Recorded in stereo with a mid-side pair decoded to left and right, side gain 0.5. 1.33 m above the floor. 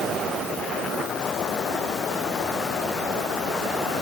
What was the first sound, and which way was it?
Only background noise.